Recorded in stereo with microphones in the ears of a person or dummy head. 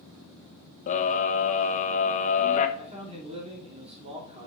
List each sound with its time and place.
0.9 s a scream: 45° left (ahead or behind), 1.1 m
2.8 s a man speaking: 30° right (ahead or behind), 3 m